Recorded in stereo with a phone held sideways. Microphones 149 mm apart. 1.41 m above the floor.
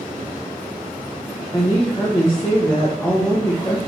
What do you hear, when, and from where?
1.5 s a woman speaking: 20° left (ahead or behind), 1.1 m